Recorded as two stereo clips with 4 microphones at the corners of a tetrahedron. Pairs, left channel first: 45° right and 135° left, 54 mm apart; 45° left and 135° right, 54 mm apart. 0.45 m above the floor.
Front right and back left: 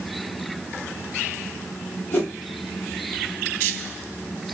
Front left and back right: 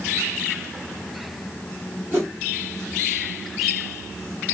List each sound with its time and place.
2.1 s a whoosh: 90° right, 1.4 m